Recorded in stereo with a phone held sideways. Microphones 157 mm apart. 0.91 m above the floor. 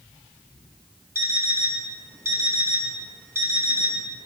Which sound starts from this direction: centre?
An alarm clock, at 1.1 s.